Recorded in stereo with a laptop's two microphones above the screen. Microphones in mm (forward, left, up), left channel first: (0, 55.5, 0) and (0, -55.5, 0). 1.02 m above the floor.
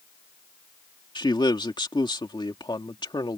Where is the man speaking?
45° left (ahead or behind).